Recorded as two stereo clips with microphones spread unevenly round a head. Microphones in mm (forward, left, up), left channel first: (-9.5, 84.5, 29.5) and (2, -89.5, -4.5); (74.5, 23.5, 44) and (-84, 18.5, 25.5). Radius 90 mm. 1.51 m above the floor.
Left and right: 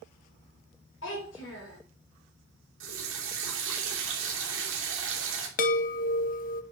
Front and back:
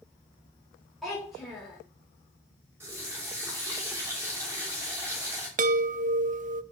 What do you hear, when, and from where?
1.0 s a child speaking: 90° left, 4 m
2.8 s a running tap: 100° right, 3 m
5.6 s a chime: 140° left, 0.7 m